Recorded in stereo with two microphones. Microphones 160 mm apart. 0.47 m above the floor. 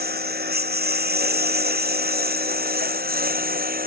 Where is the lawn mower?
85° right; by 3.9 s 70° right (ahead or behind).